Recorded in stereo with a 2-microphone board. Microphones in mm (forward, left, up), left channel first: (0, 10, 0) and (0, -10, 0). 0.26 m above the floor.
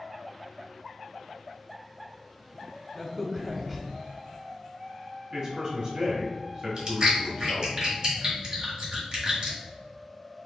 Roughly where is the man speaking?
Right.